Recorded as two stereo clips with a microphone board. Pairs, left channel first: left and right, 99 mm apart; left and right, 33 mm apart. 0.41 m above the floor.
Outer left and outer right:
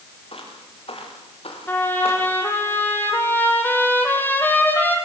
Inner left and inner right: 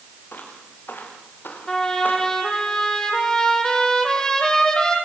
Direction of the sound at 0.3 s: 70° left (ahead or behind).